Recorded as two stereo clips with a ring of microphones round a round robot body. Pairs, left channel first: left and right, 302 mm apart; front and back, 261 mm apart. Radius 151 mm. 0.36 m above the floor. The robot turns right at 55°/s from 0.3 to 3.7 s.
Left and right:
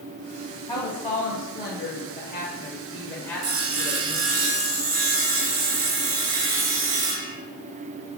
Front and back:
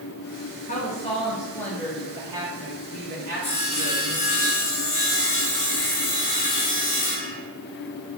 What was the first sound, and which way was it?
A woman speaking, 25° left.